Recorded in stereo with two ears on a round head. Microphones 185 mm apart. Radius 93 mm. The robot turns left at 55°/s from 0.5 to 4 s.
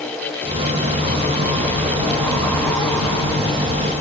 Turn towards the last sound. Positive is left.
No sound to turn to.